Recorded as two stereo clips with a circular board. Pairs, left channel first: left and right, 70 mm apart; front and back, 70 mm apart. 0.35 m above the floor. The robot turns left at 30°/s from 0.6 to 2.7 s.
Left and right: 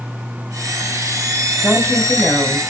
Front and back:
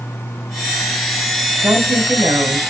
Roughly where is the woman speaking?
Behind.